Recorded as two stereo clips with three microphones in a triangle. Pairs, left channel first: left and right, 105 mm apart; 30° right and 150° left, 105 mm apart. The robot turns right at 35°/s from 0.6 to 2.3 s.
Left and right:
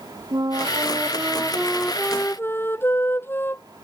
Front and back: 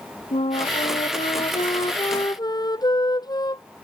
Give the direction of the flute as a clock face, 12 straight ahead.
1 o'clock.